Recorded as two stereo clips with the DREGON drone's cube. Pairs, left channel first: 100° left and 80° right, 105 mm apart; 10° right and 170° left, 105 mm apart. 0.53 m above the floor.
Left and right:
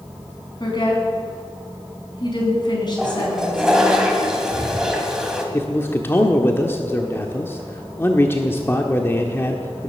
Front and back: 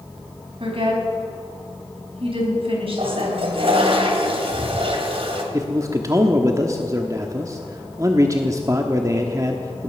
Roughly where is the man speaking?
Behind left.